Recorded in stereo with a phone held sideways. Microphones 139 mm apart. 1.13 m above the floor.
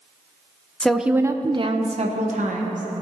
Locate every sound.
0.8 s a woman speaking: 10° left (ahead or behind), 0.6 m; by 2.8 s 70° right (ahead or behind), 1.2 m